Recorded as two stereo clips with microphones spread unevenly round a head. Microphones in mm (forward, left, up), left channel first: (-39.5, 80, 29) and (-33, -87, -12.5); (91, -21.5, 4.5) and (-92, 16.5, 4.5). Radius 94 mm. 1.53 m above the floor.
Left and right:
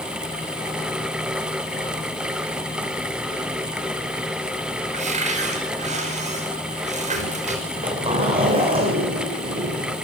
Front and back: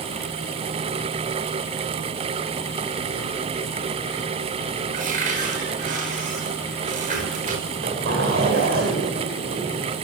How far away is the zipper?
About 7.5 m.